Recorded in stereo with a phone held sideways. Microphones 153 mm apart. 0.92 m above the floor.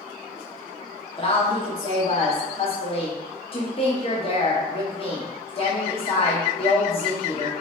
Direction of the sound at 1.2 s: 35° left (ahead or behind).